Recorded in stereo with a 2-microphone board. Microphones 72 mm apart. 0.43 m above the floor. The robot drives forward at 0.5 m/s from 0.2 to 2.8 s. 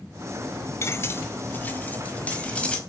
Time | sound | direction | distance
0.8 | cutlery clinking | 35° left (ahead or behind) | 0.6 m